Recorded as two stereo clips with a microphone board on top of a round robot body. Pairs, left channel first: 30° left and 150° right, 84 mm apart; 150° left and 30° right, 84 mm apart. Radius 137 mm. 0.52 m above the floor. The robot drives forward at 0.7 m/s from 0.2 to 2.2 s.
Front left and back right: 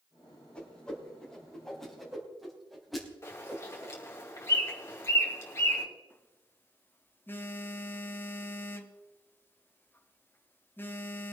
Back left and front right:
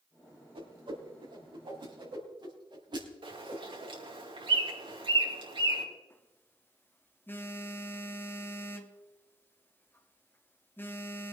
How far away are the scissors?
No scissors in this recording.